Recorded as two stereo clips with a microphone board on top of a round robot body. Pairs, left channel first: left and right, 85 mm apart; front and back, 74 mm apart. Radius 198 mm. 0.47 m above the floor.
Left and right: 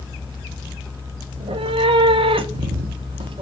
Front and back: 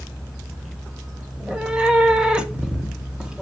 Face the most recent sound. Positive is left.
turn(degrees=-100)